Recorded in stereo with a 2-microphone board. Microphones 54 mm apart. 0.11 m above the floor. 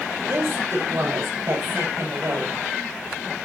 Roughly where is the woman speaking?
Right.